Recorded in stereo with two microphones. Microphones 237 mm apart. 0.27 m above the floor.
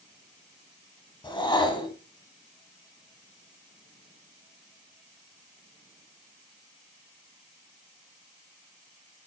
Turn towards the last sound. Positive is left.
turn(degrees=20)  # may be behind; listen again after turning